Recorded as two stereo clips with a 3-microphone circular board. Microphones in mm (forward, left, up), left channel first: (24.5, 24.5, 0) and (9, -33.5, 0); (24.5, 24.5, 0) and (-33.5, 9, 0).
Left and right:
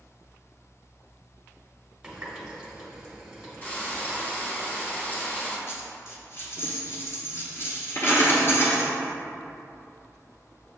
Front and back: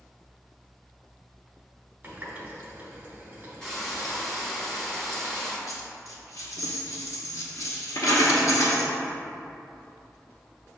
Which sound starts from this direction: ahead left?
A dropped coin, at 5.7 s.